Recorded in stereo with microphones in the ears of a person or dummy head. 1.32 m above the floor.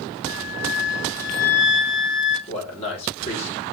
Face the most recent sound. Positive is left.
turn(degrees=35)  # may be behind; listen again after turning